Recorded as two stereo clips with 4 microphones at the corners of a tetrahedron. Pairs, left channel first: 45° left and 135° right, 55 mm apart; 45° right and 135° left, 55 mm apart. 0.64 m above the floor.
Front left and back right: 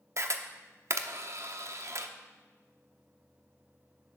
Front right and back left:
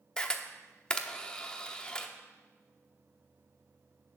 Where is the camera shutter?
120° right, 0.8 m.